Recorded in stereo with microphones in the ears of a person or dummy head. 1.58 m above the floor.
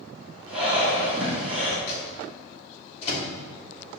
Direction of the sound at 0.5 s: Centre (ahead or behind).